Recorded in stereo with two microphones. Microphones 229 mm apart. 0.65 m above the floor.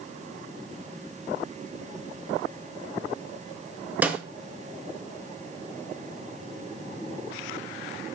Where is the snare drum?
5° right (ahead or behind), 0.9 m.